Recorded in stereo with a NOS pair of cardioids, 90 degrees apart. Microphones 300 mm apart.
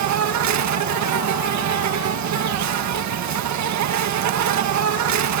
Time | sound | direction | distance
0.0 | an insect | 70° right | ?